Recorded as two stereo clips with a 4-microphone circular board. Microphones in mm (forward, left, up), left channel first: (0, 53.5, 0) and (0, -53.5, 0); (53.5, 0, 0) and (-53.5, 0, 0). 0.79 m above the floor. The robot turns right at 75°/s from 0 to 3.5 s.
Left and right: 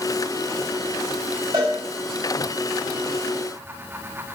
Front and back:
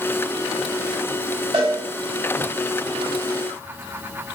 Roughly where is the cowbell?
Behind right.